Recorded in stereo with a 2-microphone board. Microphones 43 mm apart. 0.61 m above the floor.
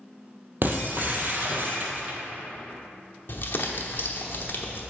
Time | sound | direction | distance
0.6 | breaking glass | 45° right (ahead or behind) | 1.2 m
3.3 | crumpling | 55° left (ahead or behind) | 1.0 m